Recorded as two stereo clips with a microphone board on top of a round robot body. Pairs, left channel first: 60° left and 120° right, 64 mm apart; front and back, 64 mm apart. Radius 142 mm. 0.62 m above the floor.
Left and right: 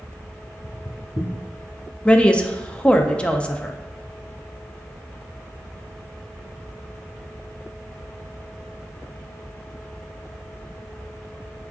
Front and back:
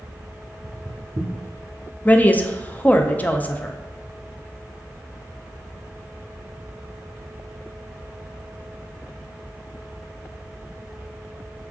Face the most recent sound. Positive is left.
turn(degrees=10)